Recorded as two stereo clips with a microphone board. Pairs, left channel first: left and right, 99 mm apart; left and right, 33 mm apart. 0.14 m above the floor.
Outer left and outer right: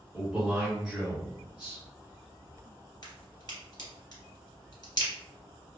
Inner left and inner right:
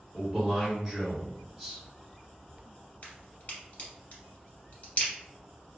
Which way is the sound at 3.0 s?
50° left (ahead or behind).